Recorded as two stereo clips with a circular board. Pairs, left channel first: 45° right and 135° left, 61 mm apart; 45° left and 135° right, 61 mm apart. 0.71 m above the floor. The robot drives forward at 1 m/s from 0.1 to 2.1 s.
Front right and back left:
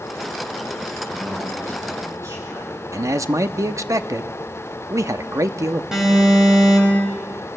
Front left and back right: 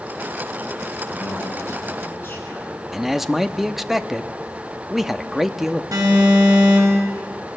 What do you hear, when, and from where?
1.1 s a man speaking: 95° left, 9.5 m; by 2.8 s 100° left, 10 m
2.9 s a man speaking: 140° left, 0.7 m
5.9 s an alarm: 145° right, 5.5 m